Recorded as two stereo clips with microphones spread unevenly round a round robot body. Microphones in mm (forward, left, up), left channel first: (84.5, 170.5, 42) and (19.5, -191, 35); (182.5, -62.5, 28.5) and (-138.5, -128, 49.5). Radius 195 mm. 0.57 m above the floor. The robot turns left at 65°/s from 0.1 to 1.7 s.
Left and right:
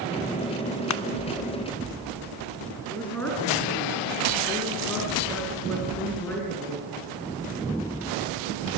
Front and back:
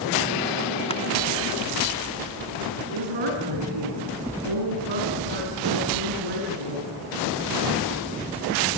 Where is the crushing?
75° left, 0.9 m; by 1.0 s 65° left, 0.9 m.